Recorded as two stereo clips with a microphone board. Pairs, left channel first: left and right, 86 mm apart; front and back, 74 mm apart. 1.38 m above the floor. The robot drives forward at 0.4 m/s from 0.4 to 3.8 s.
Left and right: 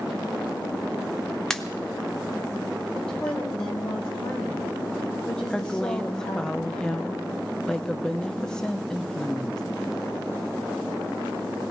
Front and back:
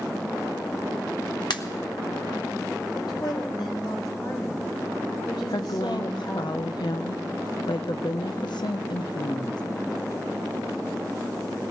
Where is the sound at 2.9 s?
10° left, 5 m.